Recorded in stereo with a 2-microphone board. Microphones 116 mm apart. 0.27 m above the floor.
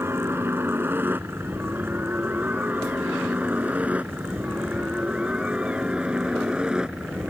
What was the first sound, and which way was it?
A helicopter, 20° right (ahead or behind).